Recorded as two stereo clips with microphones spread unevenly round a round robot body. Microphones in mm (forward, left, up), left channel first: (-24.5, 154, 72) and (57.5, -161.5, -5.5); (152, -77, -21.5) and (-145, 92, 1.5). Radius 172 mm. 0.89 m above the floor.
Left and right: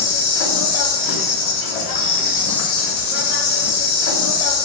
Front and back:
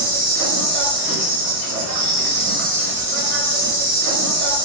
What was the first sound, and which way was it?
An insect, 105° left.